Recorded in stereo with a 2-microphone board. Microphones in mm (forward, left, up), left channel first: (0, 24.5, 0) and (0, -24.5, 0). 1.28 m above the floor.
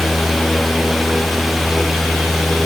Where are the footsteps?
I don't hear footsteps.